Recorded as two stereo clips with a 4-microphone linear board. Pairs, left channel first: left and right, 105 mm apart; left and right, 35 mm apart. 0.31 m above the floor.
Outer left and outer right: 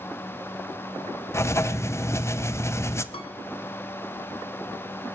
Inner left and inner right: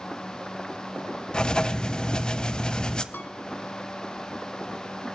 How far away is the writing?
About 0.6 m.